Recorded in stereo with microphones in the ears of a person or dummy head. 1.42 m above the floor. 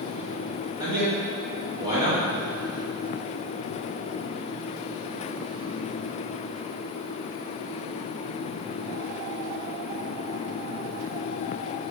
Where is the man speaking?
20° right (ahead or behind), 1.4 m.